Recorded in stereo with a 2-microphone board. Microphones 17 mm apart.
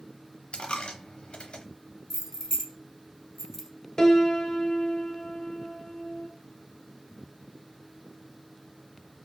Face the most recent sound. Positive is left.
turn(degrees=40)  # may be behind; listen again after turning